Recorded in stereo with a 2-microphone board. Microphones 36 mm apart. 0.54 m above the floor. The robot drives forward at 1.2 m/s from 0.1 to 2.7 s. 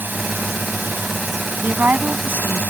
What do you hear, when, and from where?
0.0 s a drone: 70° right (ahead or behind)
1.6 s a woman speaking: 60° right (ahead or behind); by 2.6 s 70° right (ahead or behind)